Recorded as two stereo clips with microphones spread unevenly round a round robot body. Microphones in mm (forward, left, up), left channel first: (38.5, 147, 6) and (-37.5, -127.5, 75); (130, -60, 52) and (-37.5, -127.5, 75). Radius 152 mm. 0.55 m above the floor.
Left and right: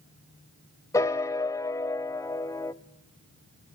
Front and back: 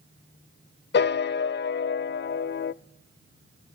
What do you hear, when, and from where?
0.9 s a piano: 10° right, 0.5 m